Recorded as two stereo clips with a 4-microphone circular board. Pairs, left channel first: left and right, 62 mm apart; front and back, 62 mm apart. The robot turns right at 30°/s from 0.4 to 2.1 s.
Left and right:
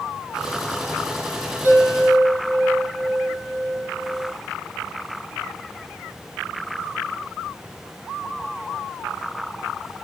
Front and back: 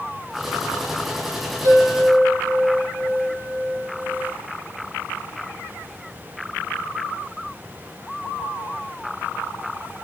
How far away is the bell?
About 5.5 m.